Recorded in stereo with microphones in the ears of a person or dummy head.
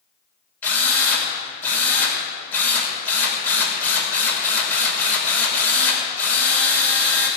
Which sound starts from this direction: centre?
A drill, at 0.6 s.